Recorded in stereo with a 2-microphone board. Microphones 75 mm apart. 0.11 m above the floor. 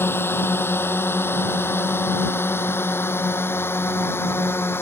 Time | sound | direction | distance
0.0 | a drone | 30° left (ahead or behind) | ?